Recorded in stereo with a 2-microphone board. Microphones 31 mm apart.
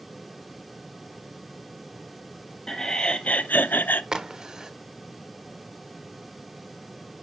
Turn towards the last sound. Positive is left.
turn(degrees=-20)  # may be behind; listen again after turning